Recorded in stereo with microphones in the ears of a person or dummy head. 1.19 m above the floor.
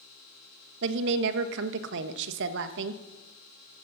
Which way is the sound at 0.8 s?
70° right (ahead or behind).